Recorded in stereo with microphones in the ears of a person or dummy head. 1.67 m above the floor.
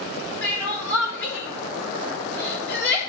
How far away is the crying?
About 4 m.